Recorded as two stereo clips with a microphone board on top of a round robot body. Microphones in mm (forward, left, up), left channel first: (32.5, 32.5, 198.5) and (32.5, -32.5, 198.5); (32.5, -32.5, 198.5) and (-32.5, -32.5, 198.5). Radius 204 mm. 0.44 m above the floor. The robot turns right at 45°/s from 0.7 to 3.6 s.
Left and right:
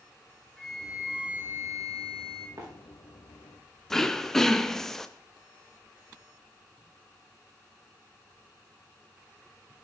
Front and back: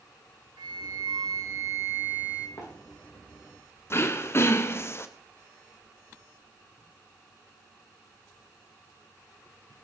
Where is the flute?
175° left, 0.6 m; by 2.5 s 105° right, 0.6 m.